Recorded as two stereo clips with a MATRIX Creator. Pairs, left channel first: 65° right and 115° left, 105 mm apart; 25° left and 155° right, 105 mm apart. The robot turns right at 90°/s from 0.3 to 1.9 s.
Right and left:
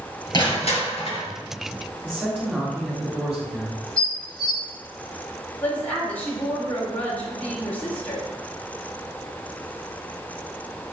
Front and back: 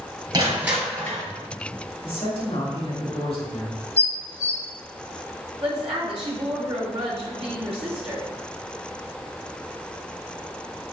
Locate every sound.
0.3 s crushing: 110° right, 2.5 m; by 1.2 s 25° right, 2.5 m
2.0 s a man speaking: 40° left, 3 m
4.0 s dishes clattering: 20° left, 1.4 m
5.6 s a woman speaking: 140° right, 2.5 m